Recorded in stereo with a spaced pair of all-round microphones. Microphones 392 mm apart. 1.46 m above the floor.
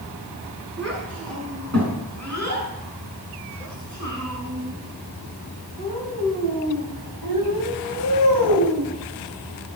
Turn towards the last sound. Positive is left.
turn(degrees=-70)  # may be behind; listen again after turning